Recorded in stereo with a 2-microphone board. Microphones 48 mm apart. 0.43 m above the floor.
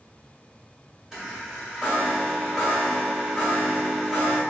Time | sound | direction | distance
1.1 | a chime | 5° right (ahead or behind) | 1.3 m